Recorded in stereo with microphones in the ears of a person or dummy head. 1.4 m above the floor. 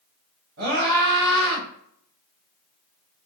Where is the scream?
85° right, 1.3 m.